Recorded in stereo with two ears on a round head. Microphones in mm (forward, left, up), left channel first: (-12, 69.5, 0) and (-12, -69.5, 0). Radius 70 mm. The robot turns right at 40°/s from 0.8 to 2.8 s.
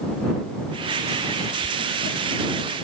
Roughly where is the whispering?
Right.